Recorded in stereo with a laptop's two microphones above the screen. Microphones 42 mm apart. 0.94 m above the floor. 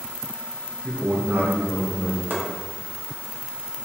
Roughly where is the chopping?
Right.